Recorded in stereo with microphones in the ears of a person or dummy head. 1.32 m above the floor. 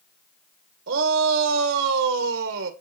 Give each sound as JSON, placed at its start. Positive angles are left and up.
{"t": 0.9, "sound": "a shout", "side_deg": -50, "distance_m": 1.6}